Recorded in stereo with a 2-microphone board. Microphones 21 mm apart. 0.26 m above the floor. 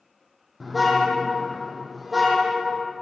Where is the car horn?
5° right (ahead or behind), 5 m.